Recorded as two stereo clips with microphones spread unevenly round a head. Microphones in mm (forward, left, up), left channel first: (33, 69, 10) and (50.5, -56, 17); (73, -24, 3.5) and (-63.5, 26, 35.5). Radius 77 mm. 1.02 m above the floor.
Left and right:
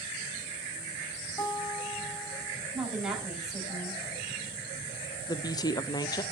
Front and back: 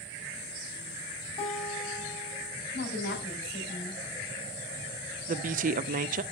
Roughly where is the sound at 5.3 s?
Behind left.